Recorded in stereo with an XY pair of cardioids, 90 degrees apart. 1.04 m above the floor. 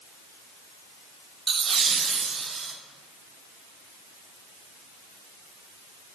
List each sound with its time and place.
1.5 s laughter: 45° right, 0.6 m; by 2.7 s 40° right, 2.0 m